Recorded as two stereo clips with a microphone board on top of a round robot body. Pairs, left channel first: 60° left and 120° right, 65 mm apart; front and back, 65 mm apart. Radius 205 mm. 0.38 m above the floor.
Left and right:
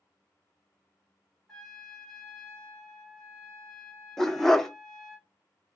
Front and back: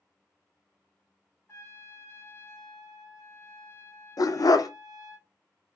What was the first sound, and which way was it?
A trumpet, 20° right.